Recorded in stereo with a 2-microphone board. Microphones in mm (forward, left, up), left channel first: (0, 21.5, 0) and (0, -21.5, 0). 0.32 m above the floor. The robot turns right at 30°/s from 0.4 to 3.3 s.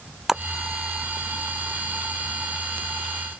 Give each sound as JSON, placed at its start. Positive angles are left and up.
{"t": 0.3, "sound": "a splash", "side_deg": -10}